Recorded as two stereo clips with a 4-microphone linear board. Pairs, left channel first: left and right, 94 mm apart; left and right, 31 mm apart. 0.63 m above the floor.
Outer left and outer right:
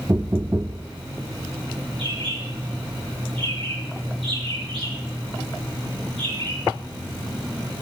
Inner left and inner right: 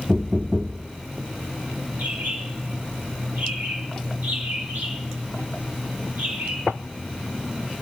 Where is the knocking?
25° right (ahead or behind), 0.8 m.